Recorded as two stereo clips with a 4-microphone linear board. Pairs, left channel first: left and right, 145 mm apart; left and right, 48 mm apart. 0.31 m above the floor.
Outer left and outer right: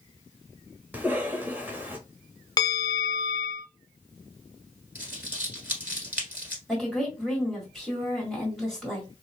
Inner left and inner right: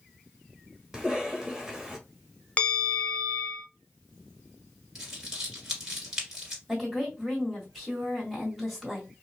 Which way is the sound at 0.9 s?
15° right (ahead or behind).